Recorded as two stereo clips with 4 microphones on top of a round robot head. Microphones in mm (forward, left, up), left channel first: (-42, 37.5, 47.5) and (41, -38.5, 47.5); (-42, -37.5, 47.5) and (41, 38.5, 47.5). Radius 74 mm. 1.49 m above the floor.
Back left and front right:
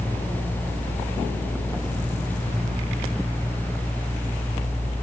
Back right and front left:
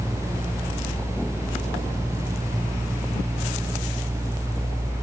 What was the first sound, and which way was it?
Only background noise.